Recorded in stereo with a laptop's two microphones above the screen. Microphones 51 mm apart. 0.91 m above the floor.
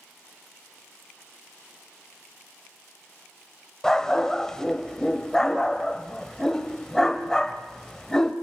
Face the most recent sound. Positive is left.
turn(degrees=10)  # may be behind; listen again after turning